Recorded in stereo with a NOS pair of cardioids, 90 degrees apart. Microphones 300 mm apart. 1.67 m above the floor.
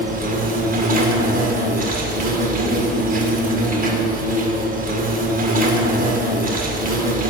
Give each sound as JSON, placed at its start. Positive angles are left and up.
{"t": 0.0, "sound": "an insect", "azimuth_deg": -30, "distance_m": 1.9}